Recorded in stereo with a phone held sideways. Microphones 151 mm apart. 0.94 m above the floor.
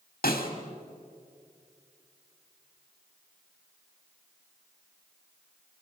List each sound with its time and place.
0.2 s a snare drum: 75° left (ahead or behind), 3 m